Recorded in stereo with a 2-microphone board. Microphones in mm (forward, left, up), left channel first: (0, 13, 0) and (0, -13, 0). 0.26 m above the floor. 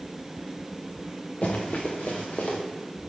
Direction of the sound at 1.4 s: 55° left (ahead or behind).